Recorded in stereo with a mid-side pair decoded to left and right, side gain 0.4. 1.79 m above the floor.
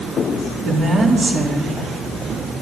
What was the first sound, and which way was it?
A woman speaking, 60° right.